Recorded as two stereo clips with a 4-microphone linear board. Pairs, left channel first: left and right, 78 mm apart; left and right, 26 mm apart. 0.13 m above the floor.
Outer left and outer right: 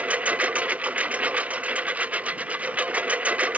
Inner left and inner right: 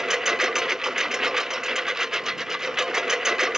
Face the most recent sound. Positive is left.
turn(degrees=-20)  # may be behind; listen again after turning